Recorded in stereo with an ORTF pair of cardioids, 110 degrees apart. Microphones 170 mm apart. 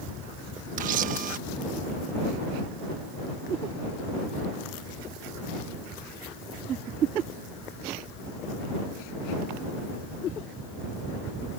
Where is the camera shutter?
60° right.